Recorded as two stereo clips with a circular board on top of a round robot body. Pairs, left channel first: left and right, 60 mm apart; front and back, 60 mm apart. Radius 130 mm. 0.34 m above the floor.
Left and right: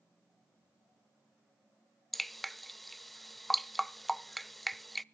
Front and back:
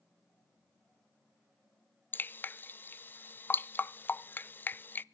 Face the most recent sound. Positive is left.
turn(degrees=5)